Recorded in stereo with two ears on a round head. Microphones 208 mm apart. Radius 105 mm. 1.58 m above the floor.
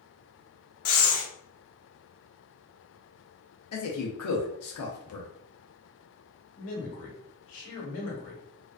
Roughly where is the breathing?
Left.